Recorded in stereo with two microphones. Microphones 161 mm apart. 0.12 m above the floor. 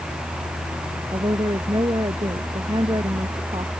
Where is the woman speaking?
25° right (ahead or behind).